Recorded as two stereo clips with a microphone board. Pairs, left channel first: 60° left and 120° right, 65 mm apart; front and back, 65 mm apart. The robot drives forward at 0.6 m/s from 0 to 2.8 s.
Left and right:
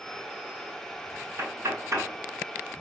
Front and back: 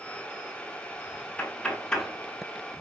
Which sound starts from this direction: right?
Knocking, at 1.4 s.